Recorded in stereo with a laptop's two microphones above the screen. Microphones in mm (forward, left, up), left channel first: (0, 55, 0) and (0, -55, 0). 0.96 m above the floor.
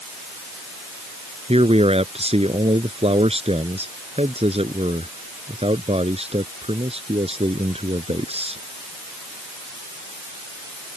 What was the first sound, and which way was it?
A man speaking, 60° right (ahead or behind).